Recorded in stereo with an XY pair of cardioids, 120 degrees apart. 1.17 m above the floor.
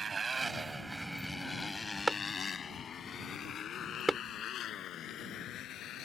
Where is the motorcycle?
35° right; by 6.0 s 65° left.